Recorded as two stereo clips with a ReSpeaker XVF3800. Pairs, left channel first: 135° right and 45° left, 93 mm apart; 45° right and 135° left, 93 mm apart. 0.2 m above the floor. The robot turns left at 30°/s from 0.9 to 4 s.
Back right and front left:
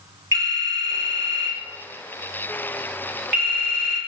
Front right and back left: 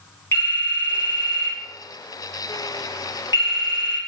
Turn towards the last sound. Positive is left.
turn(degrees=-85)